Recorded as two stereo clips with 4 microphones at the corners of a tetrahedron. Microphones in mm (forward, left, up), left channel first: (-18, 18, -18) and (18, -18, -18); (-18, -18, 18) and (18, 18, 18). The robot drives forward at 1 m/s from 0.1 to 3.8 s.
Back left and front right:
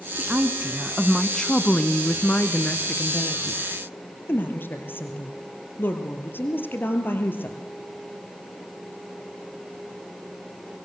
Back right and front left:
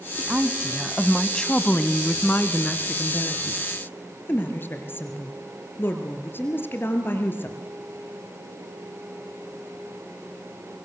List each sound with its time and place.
0.2 s a woman speaking: straight ahead, 1.3 m; by 7.6 s straight behind, 3 m